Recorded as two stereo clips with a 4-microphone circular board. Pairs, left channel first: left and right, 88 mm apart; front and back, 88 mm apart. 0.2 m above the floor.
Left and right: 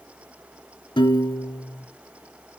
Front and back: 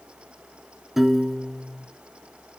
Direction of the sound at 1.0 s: 95° left.